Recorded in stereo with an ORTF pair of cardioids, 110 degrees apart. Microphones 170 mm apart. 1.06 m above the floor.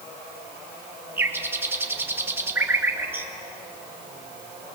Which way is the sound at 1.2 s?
15° right.